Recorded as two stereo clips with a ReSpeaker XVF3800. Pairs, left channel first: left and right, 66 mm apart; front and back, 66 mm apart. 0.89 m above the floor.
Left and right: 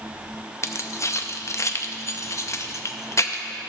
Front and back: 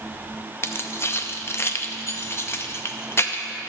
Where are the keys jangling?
50° left, 0.5 m.